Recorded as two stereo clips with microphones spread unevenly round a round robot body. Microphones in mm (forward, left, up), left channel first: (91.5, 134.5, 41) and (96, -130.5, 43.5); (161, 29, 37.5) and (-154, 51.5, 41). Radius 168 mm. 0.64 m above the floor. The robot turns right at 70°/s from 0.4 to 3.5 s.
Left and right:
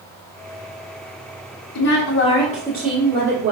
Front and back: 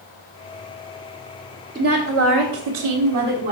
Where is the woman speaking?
105° left, 1.4 m; by 3.5 s 135° right, 1.4 m.